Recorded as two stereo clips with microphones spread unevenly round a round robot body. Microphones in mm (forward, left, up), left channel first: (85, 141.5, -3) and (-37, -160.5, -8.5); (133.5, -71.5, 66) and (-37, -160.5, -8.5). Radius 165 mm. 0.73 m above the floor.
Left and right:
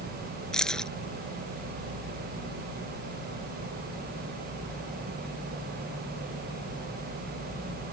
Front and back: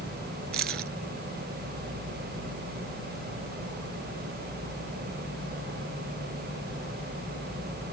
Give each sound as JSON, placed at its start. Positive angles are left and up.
{"t": 0.5, "sound": "keys jangling", "azimuth_deg": 155}